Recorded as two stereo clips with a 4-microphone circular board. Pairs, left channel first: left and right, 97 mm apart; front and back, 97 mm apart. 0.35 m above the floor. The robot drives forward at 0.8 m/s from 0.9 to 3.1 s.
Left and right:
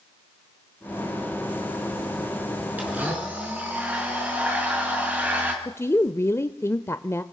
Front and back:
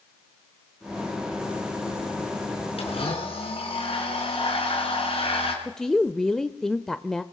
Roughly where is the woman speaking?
Left.